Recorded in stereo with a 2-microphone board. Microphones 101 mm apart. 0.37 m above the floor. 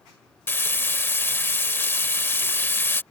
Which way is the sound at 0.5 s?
20° left (ahead or behind).